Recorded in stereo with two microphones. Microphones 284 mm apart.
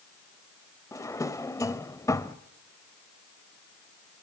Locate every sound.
0.9 s a drawer: 10° left (ahead or behind), 0.8 m